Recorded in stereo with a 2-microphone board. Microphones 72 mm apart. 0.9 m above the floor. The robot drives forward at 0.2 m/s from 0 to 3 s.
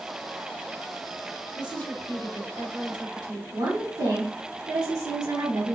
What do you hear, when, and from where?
1.6 s a woman speaking: 75° right (ahead or behind), 3 m
3.5 s a woman speaking: 65° right (ahead or behind), 2.0 m